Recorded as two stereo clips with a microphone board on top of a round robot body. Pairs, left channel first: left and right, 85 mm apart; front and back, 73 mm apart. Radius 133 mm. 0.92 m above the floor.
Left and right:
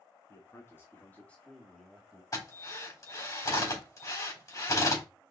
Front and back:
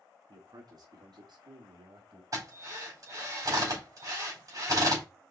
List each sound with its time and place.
0.3 s a man speaking: 145° left, 3 m; by 2.2 s 170° right, 2.5 m
2.3 s a drill: 140° left, 4.5 m